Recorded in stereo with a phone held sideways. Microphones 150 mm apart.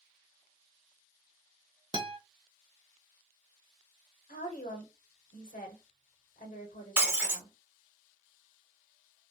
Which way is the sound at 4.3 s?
60° left (ahead or behind).